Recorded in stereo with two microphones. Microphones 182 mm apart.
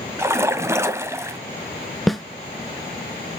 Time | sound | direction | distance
0.2 | a splash | 15° right (ahead or behind) | 1.0 m
2.1 | a snare drum | centre (ahead or behind) | 0.6 m